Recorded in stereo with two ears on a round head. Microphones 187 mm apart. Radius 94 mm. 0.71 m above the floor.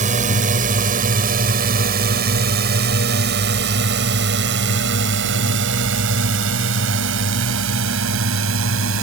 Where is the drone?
40° right (ahead or behind); by 9.0 s 75° right (ahead or behind).